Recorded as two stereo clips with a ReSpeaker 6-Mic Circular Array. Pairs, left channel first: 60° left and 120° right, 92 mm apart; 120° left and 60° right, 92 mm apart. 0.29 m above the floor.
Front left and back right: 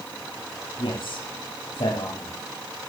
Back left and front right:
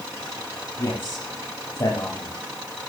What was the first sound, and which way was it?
A man speaking, 65° left.